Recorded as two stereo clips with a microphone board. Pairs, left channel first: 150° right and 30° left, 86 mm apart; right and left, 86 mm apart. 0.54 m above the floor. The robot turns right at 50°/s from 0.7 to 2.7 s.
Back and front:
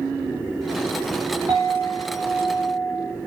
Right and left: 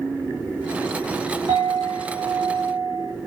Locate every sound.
1.5 s a clink: 80° left, 1.6 m; by 3.1 s 140° left, 1.6 m